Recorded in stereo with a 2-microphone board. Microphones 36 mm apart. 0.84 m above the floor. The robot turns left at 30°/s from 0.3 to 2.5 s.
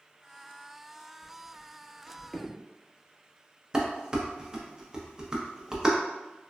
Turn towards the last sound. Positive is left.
turn(degrees=-15)  # may be behind; listen again after turning